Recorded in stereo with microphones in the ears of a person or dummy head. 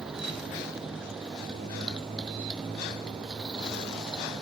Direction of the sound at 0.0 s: 5° right (ahead or behind).